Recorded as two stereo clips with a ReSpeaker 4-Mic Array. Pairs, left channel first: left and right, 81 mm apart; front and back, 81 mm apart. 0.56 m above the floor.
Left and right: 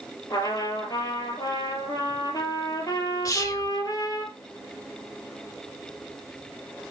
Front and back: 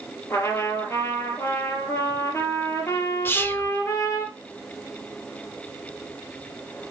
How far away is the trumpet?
About 3.5 m.